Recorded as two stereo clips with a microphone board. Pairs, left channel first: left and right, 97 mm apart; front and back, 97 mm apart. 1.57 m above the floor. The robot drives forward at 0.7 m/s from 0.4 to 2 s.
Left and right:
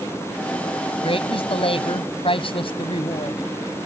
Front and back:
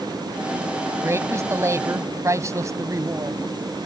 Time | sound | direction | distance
1.0 | a woman speaking | 115° left | ?